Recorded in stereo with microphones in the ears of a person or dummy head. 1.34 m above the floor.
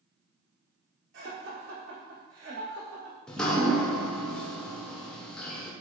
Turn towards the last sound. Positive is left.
turn(degrees=10)  # may be behind; listen again after turning